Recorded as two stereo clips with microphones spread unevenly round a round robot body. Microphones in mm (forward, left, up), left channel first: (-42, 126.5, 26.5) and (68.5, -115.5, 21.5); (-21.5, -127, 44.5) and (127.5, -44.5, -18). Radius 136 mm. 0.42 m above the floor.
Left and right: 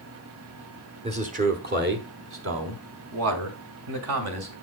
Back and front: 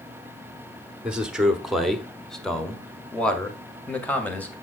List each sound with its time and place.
1.0 s a man speaking: 20° right, 1.2 m; by 4.5 s 60° right, 2.5 m